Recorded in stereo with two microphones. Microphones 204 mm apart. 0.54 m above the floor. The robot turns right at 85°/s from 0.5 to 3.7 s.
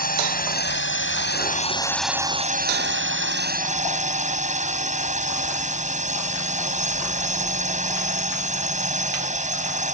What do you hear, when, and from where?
0.0 s a drone: 50° left; by 9.9 s 40° right